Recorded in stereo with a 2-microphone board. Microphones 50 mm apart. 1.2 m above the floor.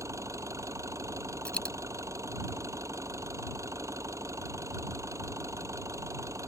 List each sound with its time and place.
0.0 s an engine running: 75° right (ahead or behind)
1.4 s a dropped coin: 20° left (ahead or behind)